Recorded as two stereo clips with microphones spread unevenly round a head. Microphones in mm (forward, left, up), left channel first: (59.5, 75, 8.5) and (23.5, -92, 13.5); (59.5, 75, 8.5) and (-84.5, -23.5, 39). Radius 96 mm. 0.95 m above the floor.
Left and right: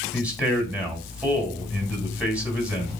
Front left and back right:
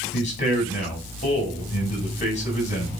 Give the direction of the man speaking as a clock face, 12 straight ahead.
1 o'clock.